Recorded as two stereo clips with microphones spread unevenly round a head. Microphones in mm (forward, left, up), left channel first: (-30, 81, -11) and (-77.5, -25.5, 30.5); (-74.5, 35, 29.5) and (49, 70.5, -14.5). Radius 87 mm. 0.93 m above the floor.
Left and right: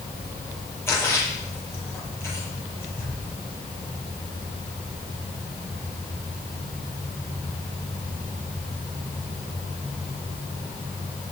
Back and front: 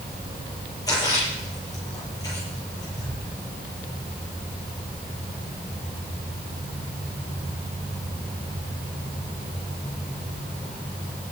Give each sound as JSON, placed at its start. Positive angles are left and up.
{"t": 0.9, "sound": "a splash", "azimuth_deg": 135, "distance_m": 9.5}